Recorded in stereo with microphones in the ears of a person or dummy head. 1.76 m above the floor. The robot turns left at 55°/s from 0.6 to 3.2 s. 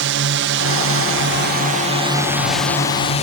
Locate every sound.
0.0 s a drone: 70° right; by 3.2 s 150° left